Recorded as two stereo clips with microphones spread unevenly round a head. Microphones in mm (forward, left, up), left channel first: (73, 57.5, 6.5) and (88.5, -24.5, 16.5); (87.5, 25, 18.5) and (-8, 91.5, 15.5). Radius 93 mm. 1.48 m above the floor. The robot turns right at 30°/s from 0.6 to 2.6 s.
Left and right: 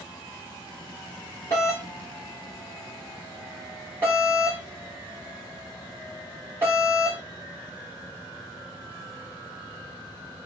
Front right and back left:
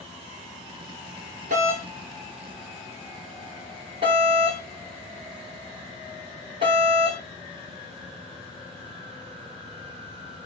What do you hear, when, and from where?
1.5 s a doorbell: 170° left, 1.9 m; by 7.2 s 160° right, 1.9 m